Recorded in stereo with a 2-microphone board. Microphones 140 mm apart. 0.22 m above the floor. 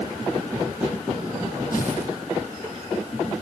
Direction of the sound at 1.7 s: 80° left.